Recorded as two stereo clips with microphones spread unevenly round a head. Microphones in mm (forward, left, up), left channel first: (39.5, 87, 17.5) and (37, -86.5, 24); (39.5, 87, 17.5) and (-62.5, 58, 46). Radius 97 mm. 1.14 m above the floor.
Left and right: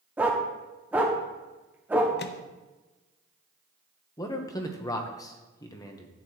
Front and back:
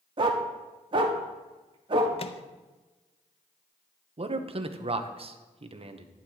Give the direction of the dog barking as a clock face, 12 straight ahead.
6 o'clock.